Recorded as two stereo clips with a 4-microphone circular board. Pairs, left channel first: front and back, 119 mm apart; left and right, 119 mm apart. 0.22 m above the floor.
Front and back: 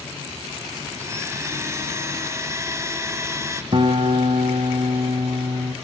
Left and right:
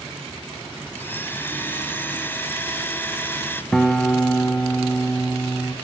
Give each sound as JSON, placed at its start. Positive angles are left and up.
{"t": 0.9, "sound": "a blender", "azimuth_deg": 145, "distance_m": 1.4}
{"t": 3.7, "sound": "a guitar", "azimuth_deg": 170, "distance_m": 1.4}